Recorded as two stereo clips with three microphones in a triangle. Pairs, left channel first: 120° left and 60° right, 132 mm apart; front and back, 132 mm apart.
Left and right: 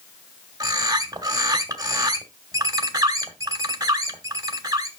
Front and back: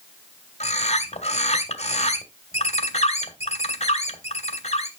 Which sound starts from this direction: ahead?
A bird, at 0.6 s.